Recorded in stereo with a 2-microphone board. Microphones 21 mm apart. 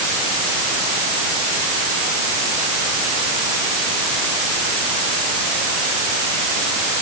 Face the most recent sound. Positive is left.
No sound to turn to.